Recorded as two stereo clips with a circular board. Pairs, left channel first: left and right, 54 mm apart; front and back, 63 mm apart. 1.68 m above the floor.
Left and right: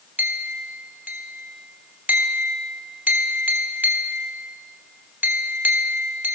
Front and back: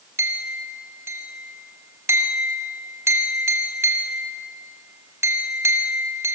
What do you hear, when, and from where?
0.2 s a clink: 140° right, 2.5 m